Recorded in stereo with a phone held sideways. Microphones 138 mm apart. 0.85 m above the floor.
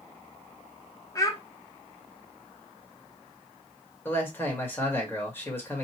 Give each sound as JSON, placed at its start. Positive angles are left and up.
{"t": 1.1, "sound": "a child speaking", "side_deg": 25, "distance_m": 1.0}
{"t": 4.0, "sound": "a man speaking", "side_deg": 15, "distance_m": 1.8}